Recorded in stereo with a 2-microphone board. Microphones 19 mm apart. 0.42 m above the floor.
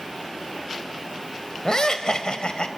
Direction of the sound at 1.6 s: 35° left (ahead or behind).